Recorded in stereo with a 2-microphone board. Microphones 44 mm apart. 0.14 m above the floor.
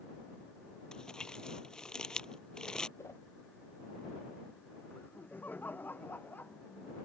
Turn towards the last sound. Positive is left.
turn(degrees=45)  # may be behind; listen again after turning